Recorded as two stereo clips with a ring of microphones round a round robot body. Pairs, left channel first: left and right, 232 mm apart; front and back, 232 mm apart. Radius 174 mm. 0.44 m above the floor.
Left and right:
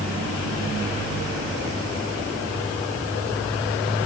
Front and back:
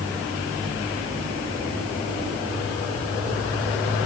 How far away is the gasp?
No gasp in this recording.